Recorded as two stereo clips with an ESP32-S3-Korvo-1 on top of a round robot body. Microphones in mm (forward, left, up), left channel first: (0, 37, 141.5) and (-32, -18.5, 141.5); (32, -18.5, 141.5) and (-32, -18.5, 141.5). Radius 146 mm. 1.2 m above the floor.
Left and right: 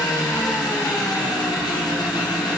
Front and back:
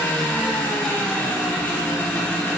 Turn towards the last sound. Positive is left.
turn(degrees=70)